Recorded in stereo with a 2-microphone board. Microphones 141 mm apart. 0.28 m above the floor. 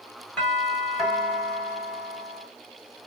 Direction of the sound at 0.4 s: 10° left (ahead or behind).